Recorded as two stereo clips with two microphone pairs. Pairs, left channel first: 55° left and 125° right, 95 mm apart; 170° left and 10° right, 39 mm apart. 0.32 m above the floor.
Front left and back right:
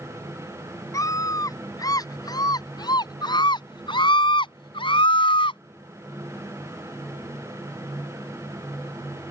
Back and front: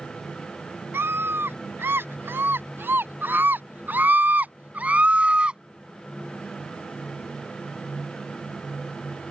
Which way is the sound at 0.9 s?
Straight ahead.